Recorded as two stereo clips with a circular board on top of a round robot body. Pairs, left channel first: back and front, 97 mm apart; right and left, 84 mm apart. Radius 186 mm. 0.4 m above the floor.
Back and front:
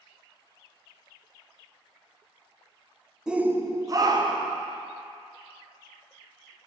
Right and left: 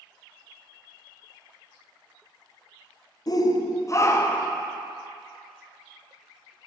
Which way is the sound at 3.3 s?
80° right.